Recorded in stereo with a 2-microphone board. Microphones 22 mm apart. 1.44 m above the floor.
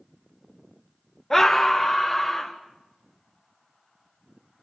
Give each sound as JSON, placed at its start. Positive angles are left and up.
{"t": 1.3, "sound": "a scream", "side_deg": 20, "distance_m": 0.8}